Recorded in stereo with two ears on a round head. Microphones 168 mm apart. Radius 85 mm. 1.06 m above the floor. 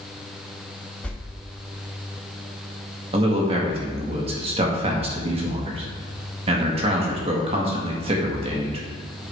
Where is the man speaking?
30° right (ahead or behind), 1.6 m.